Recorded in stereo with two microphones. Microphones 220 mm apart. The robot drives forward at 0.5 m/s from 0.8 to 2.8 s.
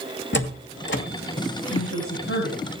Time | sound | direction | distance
0.3 | a door slam | 55° left (ahead or behind) | 2.0 m
1.7 | a woman speaking | 75° left (ahead or behind) | 7.5 m